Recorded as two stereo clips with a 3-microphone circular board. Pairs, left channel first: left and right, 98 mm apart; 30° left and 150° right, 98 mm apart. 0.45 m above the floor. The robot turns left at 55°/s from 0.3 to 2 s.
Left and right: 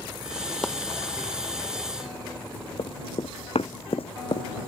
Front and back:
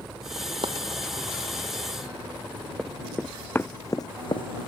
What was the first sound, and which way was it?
Chopping, 175° left.